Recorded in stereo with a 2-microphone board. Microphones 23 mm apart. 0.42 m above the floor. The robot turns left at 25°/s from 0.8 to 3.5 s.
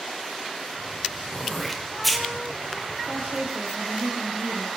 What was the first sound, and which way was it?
Throat clearing, 20° left (ahead or behind).